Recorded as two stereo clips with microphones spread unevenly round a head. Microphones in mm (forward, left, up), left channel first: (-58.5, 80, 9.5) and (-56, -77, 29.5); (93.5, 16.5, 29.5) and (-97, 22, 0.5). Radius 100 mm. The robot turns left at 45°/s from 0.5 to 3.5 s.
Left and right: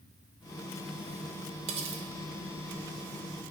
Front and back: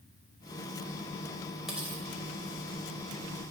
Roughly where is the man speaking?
I don't hear a man speaking.